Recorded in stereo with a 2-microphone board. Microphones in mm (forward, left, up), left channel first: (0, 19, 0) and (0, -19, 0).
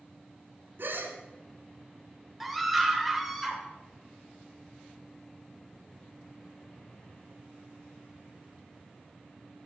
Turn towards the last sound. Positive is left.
turn(degrees=0)  # may be behind; listen again after turning